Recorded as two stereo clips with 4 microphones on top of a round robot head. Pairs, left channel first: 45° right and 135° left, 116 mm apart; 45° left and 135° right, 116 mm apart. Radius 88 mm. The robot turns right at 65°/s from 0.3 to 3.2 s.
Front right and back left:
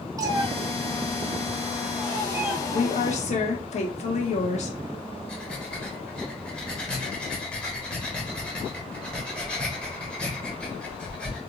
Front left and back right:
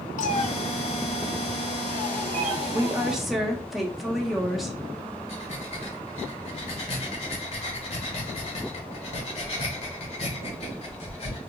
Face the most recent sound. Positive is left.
turn(degrees=35)